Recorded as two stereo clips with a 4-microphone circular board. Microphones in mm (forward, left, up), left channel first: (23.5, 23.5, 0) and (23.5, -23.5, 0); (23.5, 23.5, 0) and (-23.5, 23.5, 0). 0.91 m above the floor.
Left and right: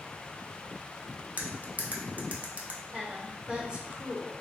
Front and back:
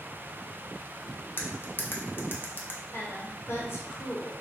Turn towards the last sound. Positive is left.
turn(degrees=-20)